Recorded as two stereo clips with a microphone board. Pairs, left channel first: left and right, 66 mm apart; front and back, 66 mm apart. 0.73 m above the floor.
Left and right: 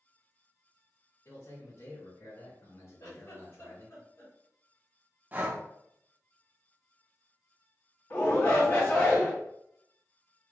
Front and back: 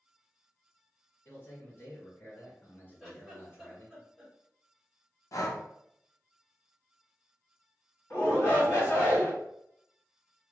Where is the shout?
40° left, 1.8 m.